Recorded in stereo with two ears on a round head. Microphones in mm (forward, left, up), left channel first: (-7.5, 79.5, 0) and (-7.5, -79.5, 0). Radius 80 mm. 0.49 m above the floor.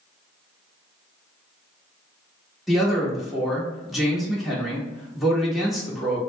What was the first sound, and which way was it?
A man speaking, centre (ahead or behind).